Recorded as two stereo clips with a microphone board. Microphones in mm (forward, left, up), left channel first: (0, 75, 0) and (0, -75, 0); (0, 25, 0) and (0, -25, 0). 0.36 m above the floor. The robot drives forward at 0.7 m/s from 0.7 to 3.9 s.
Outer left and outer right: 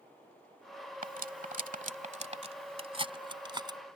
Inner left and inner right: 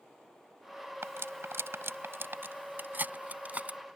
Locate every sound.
1.0 s cutlery clinking: 65° right (ahead or behind); by 3.8 s 30° right (ahead or behind)